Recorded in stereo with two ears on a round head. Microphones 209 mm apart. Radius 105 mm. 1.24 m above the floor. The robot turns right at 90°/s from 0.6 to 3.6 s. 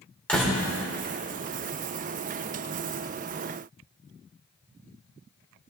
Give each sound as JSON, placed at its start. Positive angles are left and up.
{"t": 0.3, "sound": "a door slam", "side_deg": 5, "distance_m": 3.0}